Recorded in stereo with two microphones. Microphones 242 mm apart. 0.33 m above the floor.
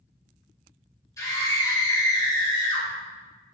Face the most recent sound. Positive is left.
turn(degrees=15)  # may be behind; listen again after turning